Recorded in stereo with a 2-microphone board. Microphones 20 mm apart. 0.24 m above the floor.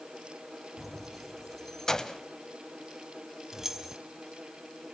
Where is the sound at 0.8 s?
10° right (ahead or behind), 1.2 m; by 2.2 s 30° left (ahead or behind), 1.0 m.